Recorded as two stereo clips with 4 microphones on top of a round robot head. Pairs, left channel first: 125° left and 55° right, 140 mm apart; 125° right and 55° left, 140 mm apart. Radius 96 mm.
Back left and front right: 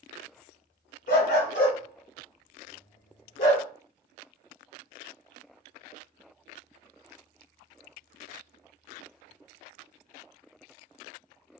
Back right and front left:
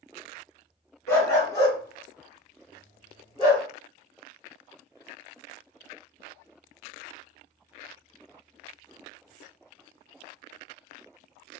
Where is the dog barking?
160° left, 1.7 m; by 3.7 s 170° left, 3 m.